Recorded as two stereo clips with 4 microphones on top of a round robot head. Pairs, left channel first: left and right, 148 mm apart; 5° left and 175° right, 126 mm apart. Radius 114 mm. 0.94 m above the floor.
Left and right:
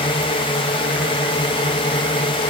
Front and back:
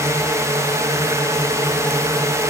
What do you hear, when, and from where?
0.0 s a drone: 130° left